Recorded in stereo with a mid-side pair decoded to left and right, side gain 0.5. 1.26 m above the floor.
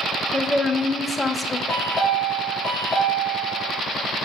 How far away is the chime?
About 2.5 m.